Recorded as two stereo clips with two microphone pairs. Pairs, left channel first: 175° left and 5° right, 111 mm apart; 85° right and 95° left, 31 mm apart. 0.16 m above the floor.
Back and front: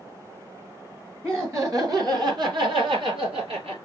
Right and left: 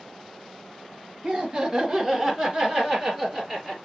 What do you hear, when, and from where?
1.2 s laughter: 50° left, 1.8 m; by 3.8 s 10° left, 3.5 m